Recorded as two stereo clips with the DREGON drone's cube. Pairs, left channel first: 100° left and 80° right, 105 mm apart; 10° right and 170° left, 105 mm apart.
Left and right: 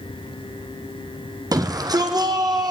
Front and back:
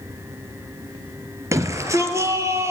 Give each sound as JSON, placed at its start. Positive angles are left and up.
{"t": 1.5, "sound": "a shout", "azimuth_deg": -130, "distance_m": 3.5}